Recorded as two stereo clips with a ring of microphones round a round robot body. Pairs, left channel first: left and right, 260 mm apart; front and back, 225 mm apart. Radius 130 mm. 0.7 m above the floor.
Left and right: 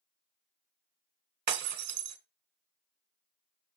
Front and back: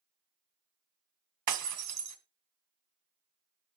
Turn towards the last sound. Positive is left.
turn(degrees=-145)